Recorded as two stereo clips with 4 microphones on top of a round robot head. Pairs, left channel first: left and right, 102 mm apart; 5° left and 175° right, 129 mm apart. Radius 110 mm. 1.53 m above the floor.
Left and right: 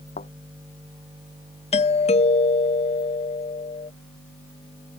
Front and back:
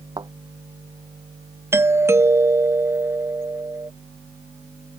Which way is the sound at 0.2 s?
125° left.